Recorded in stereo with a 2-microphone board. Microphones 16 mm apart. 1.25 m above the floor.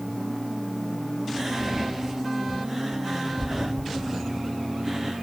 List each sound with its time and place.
1.4 s whispering: 25° right (ahead or behind), 0.7 m